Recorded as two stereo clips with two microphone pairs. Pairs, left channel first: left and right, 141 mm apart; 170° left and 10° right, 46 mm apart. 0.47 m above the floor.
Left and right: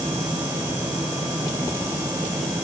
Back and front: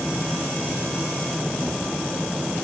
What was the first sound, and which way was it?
Only background noise.